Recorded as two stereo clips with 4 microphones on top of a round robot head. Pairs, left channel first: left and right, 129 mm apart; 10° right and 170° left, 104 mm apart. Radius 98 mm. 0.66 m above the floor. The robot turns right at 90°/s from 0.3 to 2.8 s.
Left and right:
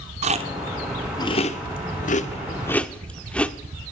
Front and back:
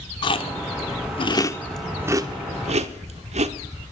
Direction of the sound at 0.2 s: 55° right.